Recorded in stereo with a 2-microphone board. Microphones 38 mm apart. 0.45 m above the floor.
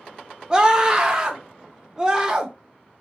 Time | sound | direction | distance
0.5 | a scream | 20° right (ahead or behind) | 0.8 m